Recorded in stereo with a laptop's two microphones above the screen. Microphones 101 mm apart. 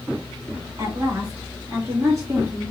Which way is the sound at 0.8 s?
35° right (ahead or behind).